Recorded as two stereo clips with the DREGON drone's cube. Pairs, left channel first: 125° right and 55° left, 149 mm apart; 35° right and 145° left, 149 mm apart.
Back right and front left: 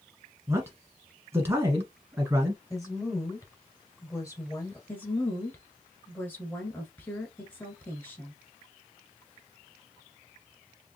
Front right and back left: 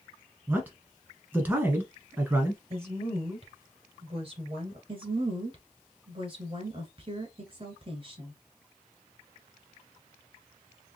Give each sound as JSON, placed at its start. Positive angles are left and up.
{"t": 0.5, "sound": "a man speaking", "azimuth_deg": 90, "distance_m": 1.4}
{"t": 2.7, "sound": "a woman speaking", "azimuth_deg": 175, "distance_m": 2.0}
{"t": 4.9, "sound": "a woman speaking", "azimuth_deg": 165, "distance_m": 1.5}